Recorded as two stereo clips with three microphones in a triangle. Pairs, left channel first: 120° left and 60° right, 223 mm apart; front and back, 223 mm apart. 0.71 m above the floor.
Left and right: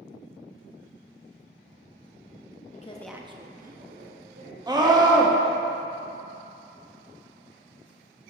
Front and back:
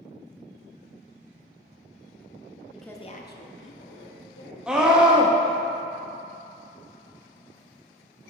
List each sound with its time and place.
2.7 s a woman speaking: 105° left, 0.5 m; by 4.6 s 25° right, 1.8 m
4.7 s a scream: 100° right, 0.8 m